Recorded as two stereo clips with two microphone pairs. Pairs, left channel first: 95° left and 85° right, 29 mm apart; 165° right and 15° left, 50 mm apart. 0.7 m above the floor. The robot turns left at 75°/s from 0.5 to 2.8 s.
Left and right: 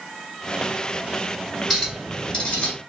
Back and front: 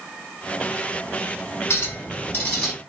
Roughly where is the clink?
Behind.